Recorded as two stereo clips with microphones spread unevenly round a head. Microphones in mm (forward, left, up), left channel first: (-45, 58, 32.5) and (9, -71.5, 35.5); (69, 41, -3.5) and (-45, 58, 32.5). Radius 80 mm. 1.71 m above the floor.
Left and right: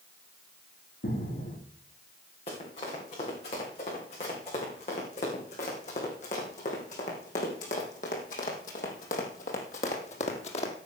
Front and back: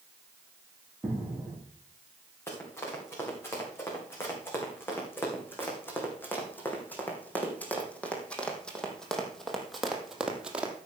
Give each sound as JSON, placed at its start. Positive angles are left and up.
{"t": 1.0, "sound": "footsteps", "azimuth_deg": 95, "distance_m": 5.0}
{"t": 2.5, "sound": "running footsteps", "azimuth_deg": 65, "distance_m": 6.5}